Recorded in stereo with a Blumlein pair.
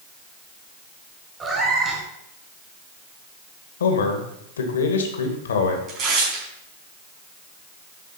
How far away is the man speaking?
About 2.0 m.